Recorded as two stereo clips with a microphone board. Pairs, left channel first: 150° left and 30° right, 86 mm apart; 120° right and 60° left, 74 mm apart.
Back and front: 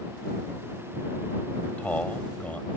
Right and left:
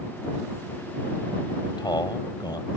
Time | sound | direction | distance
1.6 | a man speaking | 135° right | ?